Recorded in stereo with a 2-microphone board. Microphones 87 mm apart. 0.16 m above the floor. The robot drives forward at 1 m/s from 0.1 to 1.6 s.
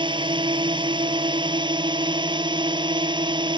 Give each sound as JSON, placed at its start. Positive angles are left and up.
{"t": 0.0, "sound": "a drone", "side_deg": -70}